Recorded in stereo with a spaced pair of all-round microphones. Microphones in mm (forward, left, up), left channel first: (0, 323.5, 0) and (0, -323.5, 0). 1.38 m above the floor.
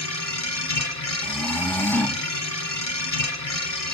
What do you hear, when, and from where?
0.0 s a machine running: 60° left (ahead or behind), 2.5 m
1.2 s snoring: 5° left (ahead or behind), 0.9 m